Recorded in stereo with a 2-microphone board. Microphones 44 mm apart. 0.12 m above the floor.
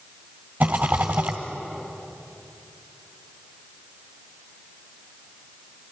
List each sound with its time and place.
0.6 s a rattle: 50° right (ahead or behind), 2 m